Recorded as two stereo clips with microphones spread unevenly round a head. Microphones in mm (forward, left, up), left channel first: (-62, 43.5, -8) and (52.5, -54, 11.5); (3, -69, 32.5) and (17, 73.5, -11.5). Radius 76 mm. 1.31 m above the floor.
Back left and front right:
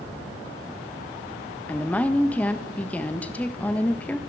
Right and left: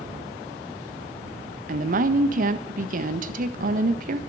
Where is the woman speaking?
60° left, 1.4 m.